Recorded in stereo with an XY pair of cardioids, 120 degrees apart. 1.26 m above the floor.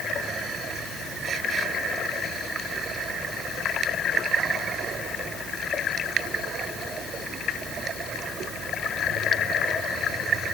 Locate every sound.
Only background noise.